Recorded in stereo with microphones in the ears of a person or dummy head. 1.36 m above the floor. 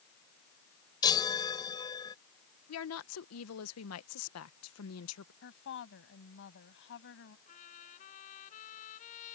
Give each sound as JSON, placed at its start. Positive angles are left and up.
{"t": 1.0, "sound": "a chime", "side_deg": 25}
{"t": 2.7, "sound": "a woman speaking", "side_deg": 75}
{"t": 5.4, "sound": "a woman speaking", "side_deg": 65}
{"t": 7.5, "sound": "a trumpet", "side_deg": 45}